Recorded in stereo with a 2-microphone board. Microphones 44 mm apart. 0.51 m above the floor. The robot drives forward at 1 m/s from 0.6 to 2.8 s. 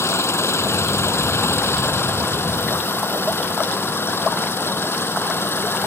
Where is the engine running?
85° left; by 5.9 s 65° left (ahead or behind).